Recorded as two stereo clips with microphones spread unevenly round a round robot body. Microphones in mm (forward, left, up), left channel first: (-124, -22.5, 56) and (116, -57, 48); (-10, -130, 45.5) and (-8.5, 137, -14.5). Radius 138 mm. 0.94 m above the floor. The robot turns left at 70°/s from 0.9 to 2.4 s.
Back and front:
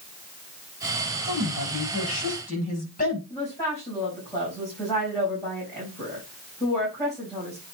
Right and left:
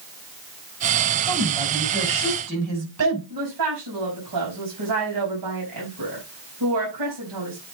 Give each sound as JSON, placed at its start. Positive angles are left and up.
{"t": 1.2, "sound": "a woman speaking", "azimuth_deg": -170, "distance_m": 6.0}
{"t": 3.3, "sound": "a woman speaking", "azimuth_deg": 95, "distance_m": 5.0}